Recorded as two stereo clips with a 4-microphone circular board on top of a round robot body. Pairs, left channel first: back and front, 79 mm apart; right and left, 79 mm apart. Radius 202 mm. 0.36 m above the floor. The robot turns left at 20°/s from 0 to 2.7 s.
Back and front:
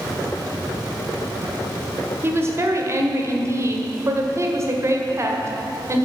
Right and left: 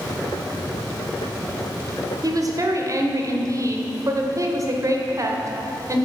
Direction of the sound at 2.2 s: 55° left.